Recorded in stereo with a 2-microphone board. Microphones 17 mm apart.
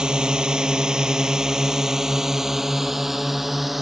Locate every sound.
0.0 s a drone: 65° right (ahead or behind); by 3.8 s 15° right (ahead or behind)